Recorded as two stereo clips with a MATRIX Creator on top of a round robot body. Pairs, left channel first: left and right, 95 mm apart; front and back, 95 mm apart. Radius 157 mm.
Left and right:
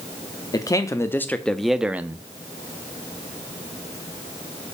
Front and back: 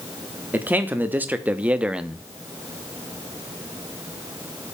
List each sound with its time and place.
0.5 s a man speaking: 115° left, 1.0 m; by 2.3 s 105° right, 0.8 m